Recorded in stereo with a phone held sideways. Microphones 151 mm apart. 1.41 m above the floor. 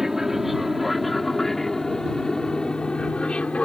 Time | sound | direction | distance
0.0 | an aircraft | 5° right (ahead or behind) | ?